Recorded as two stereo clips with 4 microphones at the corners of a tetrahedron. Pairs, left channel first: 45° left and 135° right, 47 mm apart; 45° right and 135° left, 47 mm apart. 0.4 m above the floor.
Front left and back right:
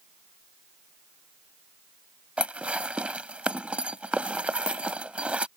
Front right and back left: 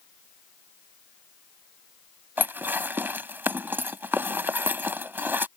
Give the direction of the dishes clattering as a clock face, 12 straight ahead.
6 o'clock.